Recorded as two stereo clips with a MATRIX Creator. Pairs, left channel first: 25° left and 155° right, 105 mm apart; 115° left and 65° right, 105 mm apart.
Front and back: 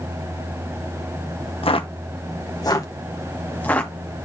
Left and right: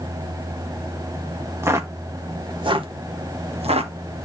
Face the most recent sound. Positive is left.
turn(degrees=-55)